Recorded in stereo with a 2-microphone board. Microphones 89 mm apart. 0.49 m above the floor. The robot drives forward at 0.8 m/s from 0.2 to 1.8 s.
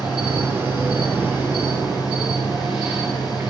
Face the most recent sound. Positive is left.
turn(degrees=-10)  # may be behind; listen again after turning